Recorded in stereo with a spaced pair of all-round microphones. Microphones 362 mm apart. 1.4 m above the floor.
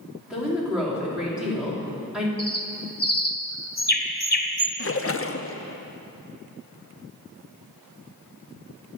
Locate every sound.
0.3 s a woman speaking: 5° right (ahead or behind), 3.5 m
2.4 s a bird: 25° left (ahead or behind), 1.1 m
4.8 s a splash: 40° left (ahead or behind), 0.5 m